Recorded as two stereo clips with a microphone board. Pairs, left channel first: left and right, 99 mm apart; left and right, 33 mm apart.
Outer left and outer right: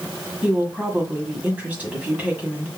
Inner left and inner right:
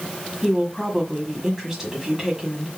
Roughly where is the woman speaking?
Centre.